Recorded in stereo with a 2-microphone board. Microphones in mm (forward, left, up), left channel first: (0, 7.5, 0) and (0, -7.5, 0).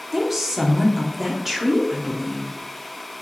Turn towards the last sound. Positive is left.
turn(degrees=-15)  # may be behind; listen again after turning